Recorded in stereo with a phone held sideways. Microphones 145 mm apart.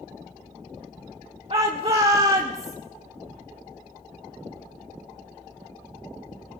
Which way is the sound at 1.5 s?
40° right (ahead or behind).